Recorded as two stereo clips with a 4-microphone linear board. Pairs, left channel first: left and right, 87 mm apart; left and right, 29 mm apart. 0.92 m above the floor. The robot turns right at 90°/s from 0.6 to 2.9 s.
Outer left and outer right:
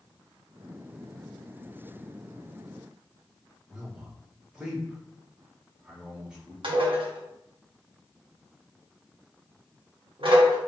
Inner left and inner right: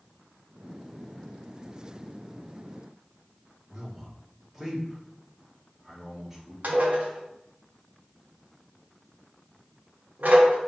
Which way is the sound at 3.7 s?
10° right (ahead or behind).